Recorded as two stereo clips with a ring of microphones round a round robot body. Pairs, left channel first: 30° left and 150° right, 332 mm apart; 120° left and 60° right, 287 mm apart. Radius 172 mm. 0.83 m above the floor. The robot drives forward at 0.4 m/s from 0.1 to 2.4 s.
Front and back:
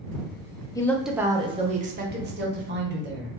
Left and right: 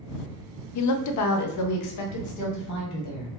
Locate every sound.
0.8 s a woman speaking: 110° left, 0.5 m; by 3.3 s 150° left, 1.0 m